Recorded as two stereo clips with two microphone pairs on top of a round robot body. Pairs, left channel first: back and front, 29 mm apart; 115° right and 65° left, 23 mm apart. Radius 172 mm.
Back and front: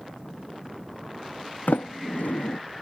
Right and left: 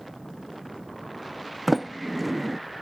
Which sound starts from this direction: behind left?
A sliding door, at 1.7 s.